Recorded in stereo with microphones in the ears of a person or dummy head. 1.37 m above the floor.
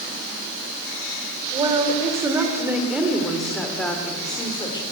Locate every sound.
1.5 s a woman speaking: 25° right (ahead or behind), 4 m; by 4.8 s 20° left (ahead or behind), 3.5 m